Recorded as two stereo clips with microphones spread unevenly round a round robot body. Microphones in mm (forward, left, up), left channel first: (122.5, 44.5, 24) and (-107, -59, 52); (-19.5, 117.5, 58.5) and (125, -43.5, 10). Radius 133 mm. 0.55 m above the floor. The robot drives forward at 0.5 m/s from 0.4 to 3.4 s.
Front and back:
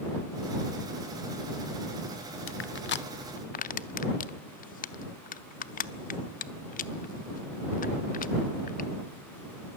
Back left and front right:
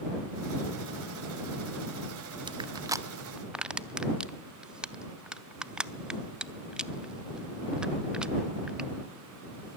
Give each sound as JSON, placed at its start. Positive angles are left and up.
{"t": 2.5, "sound": "crushing", "azimuth_deg": 10, "distance_m": 1.0}